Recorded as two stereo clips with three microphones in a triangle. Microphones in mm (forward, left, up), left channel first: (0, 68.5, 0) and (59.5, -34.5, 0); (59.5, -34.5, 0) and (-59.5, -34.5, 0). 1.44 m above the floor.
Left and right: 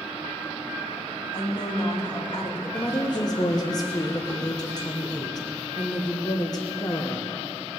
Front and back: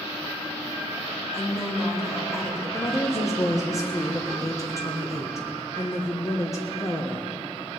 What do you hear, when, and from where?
1.3 s a woman speaking: 65° left, 2.5 m
2.7 s a woman speaking: 65° left, 1.2 m